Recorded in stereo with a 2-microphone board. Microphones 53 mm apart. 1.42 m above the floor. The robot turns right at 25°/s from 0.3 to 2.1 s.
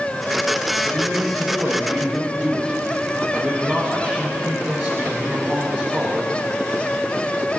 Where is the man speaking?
45° right, 2.0 m; by 6.4 s 15° right, 2.0 m.